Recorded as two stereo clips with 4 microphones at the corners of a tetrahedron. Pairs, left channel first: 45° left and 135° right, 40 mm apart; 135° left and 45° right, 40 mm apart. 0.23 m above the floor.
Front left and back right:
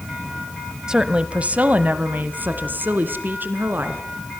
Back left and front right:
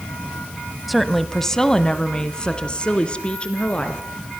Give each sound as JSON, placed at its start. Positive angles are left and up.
{"t": 0.9, "sound": "a woman speaking", "azimuth_deg": -135, "distance_m": 1.1}